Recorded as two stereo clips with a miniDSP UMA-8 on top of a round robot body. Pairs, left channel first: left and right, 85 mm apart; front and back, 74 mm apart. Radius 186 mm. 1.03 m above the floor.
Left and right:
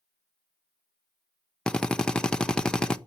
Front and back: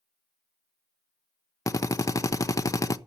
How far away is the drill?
About 1.0 m.